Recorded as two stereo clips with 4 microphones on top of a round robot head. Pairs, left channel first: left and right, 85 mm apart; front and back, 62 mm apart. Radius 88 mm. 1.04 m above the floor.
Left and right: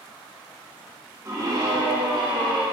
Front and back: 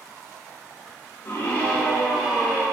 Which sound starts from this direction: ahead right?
A scream, at 1.2 s.